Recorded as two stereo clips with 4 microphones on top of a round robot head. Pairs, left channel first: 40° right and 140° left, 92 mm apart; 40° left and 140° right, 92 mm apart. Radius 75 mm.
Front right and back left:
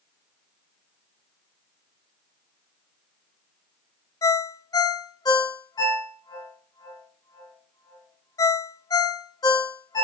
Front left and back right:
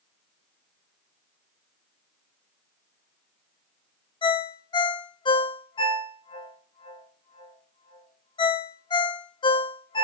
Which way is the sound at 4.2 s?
5° left.